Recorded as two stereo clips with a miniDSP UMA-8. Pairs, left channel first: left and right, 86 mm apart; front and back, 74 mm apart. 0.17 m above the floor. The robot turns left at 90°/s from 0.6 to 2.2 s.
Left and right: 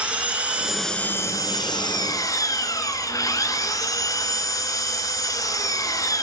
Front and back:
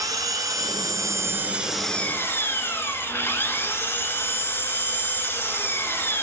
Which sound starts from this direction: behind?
An engine running, at 0.0 s.